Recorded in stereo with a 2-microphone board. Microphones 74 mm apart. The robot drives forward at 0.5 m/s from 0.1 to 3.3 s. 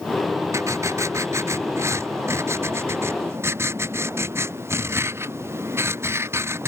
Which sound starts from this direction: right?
Writing, at 0.5 s.